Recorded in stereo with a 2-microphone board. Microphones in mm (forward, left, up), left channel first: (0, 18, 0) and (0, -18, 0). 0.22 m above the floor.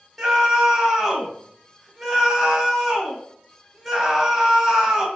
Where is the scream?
5° right (ahead or behind), 1.0 m.